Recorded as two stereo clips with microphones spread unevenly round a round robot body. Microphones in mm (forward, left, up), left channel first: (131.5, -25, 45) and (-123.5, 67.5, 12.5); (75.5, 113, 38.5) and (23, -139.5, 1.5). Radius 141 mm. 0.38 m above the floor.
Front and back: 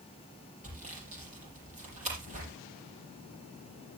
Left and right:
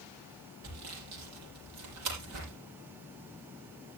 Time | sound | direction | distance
0.6 | sawing | 135° right | 6.5 m